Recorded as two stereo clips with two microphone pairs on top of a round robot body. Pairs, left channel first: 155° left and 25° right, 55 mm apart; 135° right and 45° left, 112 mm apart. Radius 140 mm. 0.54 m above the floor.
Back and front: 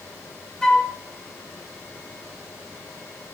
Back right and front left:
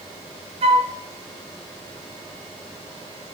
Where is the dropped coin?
I don't hear a dropped coin.